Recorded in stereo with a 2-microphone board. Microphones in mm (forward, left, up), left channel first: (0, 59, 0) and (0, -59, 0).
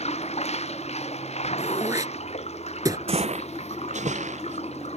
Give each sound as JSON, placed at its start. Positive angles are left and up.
{"t": 0.0, "sound": "running water", "side_deg": 65}
{"t": 1.6, "sound": "throat clearing", "side_deg": -30}
{"t": 3.1, "sound": "footsteps", "side_deg": -55}